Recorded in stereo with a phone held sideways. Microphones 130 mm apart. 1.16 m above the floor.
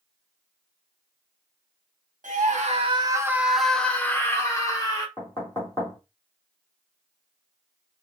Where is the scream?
75° right (ahead or behind), 0.7 m; by 5.1 s 30° left (ahead or behind), 1.6 m.